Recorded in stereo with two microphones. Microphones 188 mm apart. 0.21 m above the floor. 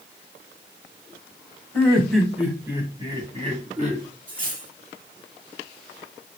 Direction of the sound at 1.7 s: 10° left (ahead or behind).